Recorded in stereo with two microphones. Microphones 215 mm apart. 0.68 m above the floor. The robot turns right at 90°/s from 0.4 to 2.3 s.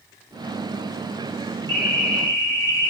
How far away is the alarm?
About 3 m.